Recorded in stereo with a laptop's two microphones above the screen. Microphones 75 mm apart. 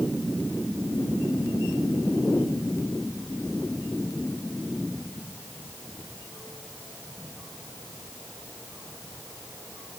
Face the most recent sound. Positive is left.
No sound to turn to.